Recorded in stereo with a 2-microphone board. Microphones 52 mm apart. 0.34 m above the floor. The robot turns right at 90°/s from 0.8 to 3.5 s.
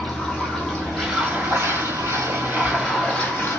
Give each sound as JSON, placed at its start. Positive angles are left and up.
{"t": 0.0, "sound": "running water", "azimuth_deg": 165, "distance_m": 1.5}